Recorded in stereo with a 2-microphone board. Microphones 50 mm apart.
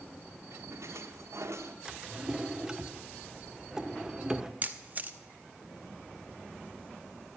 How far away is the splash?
About 1.2 m.